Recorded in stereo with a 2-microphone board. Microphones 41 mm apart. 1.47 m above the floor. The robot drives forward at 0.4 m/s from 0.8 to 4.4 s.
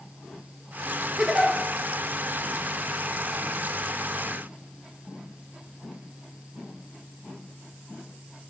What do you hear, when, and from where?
1.2 s a giggle: 20° right (ahead or behind), 1.4 m; by 1.5 s 15° right (ahead or behind), 1.5 m